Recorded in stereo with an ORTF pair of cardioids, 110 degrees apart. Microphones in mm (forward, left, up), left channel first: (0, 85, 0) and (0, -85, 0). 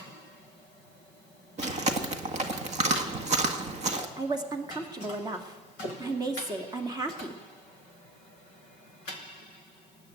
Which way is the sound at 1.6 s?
40° right.